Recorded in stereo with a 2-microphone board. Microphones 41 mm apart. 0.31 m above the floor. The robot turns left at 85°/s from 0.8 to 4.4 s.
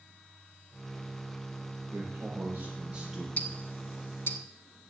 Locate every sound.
1.9 s a man speaking: 75° right, 6 m; by 3.3 s 170° left, 6 m
3.4 s ticking: 35° left (ahead or behind), 0.8 m; by 4.4 s 60° left (ahead or behind), 0.8 m